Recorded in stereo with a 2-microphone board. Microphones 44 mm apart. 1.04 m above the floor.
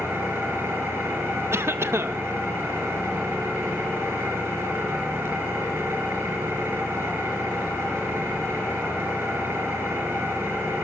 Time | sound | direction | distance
0.0 | an engine running | 75° right (ahead or behind) | 5 m
1.5 | a cough | 70° right (ahead or behind) | 0.8 m